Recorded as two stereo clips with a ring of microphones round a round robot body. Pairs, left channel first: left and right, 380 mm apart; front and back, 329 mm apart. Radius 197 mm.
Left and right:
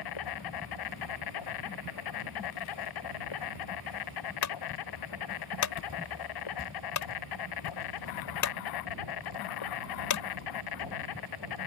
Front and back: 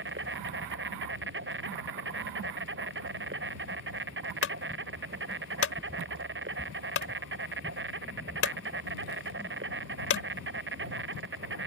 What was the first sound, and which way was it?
An insect, 125° left.